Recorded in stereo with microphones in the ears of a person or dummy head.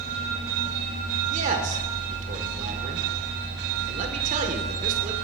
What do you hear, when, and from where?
1.3 s a man speaking: 40° right (ahead or behind), 1.5 m